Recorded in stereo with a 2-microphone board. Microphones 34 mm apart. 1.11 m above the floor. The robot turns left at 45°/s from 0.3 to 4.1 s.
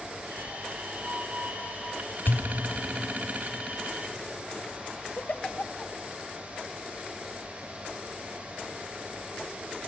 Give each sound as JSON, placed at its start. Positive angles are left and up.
{"t": 2.3, "sound": "a pop", "side_deg": 75, "distance_m": 1.9}
{"t": 5.2, "sound": "a giggle", "side_deg": 45, "distance_m": 0.9}